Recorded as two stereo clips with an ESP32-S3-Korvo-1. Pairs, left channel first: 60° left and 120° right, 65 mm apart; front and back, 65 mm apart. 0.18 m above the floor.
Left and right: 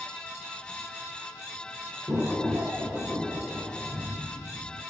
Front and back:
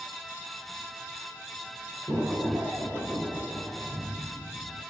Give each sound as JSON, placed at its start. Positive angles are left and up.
{"t": 2.1, "sound": "an explosion", "azimuth_deg": -155, "distance_m": 1.4}